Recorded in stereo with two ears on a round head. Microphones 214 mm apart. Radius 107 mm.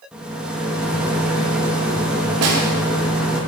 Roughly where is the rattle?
Centre.